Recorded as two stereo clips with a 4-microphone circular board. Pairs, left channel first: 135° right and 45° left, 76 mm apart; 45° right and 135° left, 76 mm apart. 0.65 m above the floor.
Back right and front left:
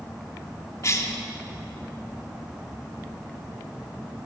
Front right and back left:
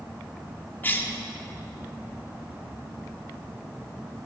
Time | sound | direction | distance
0.8 | a cough | 100° right | 1.6 m